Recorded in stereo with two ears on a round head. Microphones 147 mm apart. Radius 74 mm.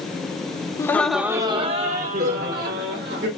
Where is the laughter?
20° left (ahead or behind), 0.8 m; by 3.3 s 70° right (ahead or behind), 1.9 m.